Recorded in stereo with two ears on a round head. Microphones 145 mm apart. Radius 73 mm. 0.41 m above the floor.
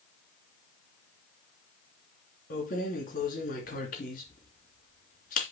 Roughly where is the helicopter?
No helicopter in this recording.